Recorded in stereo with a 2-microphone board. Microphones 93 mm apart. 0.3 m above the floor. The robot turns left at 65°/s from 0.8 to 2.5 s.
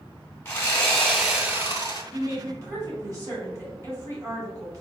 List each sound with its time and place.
0.5 s sawing: 25° left, 1.8 m; by 2.0 s 55° right, 1.8 m
2.1 s a woman speaking: 25° right (ahead or behind), 1.7 m; by 4.8 s 35° right (ahead or behind), 1.7 m